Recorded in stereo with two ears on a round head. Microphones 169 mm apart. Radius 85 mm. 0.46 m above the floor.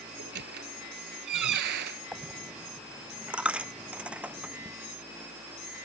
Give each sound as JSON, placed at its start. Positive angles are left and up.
{"t": 0.2, "sound": "a squeak", "side_deg": -55}
{"t": 2.1, "sound": "a dropped coin", "side_deg": -5}